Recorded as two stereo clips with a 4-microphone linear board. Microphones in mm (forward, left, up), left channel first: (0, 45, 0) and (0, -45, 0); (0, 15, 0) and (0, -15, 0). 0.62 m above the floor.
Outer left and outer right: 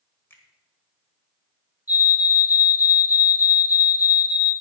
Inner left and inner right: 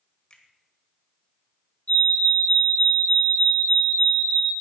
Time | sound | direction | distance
0.3 | a finger snap | 25° left (ahead or behind) | 1.9 m
1.9 | a fire alarm | 40° left (ahead or behind) | 5 m